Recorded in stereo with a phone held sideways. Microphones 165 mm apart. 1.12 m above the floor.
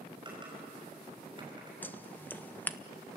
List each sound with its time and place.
0.2 s typing on a keyboard: 30° right (ahead or behind), 6 m
1.8 s scissors: 10° left (ahead or behind), 0.7 m